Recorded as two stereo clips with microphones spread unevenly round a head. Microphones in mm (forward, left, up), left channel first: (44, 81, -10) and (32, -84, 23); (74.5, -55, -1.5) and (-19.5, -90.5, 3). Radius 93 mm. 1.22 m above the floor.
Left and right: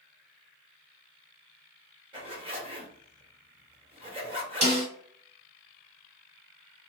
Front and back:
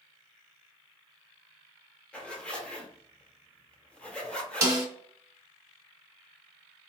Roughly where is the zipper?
Ahead right.